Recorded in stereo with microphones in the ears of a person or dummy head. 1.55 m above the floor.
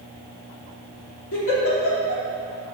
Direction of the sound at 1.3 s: 80° left.